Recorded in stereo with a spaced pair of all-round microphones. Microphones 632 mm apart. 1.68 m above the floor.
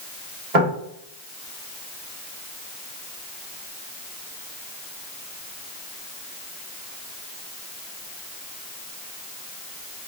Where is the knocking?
65° right (ahead or behind), 1.7 m.